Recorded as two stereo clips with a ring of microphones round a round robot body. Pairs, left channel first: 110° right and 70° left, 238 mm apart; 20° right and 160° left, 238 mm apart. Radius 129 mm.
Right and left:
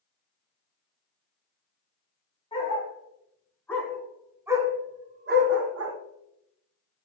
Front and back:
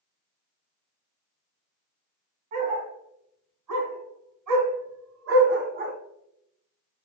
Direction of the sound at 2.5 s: Straight behind.